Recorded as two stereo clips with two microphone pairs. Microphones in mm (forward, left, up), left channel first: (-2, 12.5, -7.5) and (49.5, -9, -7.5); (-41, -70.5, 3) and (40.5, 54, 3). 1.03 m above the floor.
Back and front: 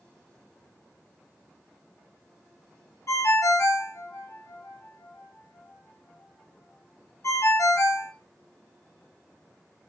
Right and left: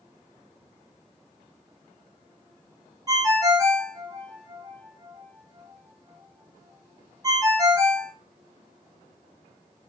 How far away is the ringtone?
About 0.6 m.